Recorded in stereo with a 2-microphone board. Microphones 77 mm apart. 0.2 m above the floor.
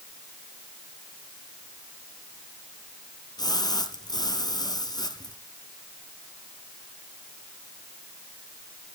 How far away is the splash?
About 2 m.